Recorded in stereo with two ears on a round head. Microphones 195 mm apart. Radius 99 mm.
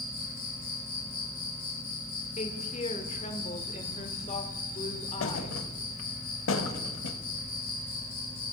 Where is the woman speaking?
30° left (ahead or behind), 1.3 m.